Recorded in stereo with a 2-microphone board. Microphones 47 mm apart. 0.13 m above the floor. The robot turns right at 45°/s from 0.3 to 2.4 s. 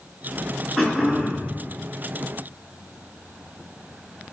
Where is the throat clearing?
175° left, 1.2 m; by 1.5 s 150° right, 1.2 m.